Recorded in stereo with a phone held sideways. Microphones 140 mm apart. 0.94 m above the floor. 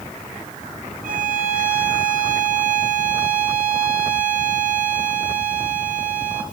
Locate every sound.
1.0 s a violin: 70° right (ahead or behind), 2 m